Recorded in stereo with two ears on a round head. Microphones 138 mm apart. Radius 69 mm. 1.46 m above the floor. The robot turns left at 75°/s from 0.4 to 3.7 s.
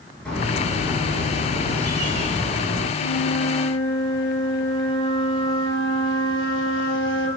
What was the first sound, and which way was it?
A bird, 5° left.